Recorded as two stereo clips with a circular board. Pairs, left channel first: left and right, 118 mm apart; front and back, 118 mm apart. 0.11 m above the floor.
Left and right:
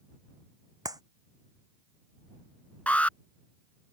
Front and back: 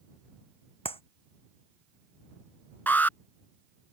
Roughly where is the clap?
Ahead right.